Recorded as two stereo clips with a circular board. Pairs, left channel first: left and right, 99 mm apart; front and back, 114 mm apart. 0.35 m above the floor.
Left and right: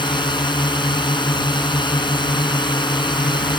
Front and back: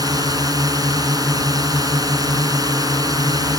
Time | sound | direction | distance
0.0 | a drone | 125° left | ?